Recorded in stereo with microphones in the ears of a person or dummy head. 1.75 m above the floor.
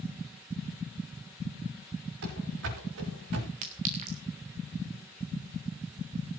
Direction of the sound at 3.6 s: 35° right (ahead or behind).